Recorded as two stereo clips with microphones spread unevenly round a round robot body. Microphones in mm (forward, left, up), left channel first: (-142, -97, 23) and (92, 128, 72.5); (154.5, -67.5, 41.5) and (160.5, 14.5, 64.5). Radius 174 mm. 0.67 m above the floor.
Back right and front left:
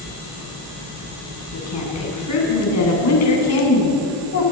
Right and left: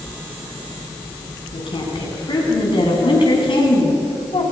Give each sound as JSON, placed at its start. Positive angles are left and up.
{"t": 1.5, "sound": "a woman speaking", "azimuth_deg": -95, "distance_m": 8.0}